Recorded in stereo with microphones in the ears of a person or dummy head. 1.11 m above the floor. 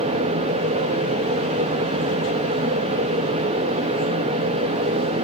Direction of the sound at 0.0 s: 35° right (ahead or behind).